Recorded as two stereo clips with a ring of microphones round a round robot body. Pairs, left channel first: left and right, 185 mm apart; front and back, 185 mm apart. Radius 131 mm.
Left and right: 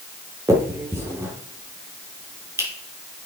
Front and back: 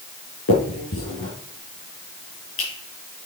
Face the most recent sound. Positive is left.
turn(degrees=-15)